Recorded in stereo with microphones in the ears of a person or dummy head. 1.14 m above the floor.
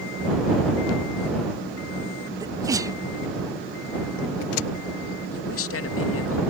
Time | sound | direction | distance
2.4 | a sneeze | 15° right (ahead or behind) | ?
5.3 | a man speaking | 70° left (ahead or behind) | ?